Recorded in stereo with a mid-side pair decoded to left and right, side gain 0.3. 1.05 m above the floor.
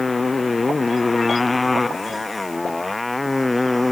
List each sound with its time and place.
0.0 s a motorcycle: 40° left; by 3.9 s 25° left